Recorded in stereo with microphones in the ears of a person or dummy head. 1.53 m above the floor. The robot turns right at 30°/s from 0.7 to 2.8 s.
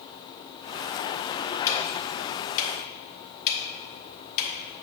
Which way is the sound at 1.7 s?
15° left (ahead or behind).